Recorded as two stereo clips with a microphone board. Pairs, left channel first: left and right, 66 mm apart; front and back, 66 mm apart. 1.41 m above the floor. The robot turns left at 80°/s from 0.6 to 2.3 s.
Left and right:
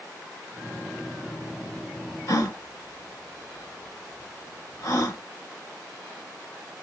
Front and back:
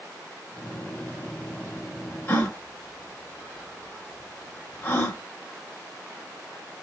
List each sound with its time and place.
2.3 s a gasp: 60° left, 1.4 m